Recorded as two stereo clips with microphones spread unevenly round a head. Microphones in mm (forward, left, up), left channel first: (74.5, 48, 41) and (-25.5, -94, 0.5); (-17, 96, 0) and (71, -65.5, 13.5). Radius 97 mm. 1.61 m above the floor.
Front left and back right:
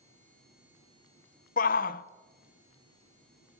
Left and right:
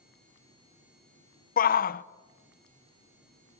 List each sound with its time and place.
1.6 s a shout: 80° left, 0.8 m